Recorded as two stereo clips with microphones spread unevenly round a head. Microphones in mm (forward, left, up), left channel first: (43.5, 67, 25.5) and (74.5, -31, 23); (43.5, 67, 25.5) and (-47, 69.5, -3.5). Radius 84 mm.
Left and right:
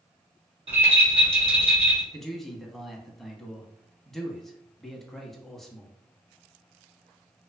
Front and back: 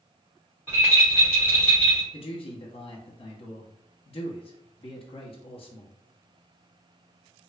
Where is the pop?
No pop in this recording.